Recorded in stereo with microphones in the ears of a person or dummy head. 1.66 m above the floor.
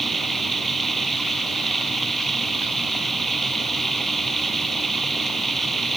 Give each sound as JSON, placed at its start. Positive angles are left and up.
{"t": 0.0, "sound": "running water", "side_deg": 0}